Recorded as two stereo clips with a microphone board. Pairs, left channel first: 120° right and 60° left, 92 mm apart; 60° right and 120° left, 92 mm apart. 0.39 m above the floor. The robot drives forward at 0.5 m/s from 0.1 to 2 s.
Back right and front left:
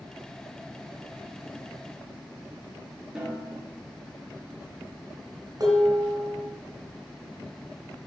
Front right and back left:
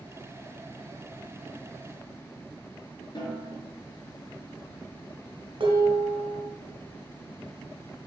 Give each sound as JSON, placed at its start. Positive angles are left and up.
{"t": 3.1, "sound": "a snare drum", "azimuth_deg": -25, "distance_m": 4.5}
{"t": 5.6, "sound": "dishes clattering", "azimuth_deg": 100, "distance_m": 2.5}